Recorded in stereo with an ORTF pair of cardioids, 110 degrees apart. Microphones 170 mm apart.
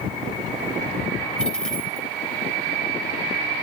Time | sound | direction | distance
1.4 | a dropped coin | 5° left | 3 m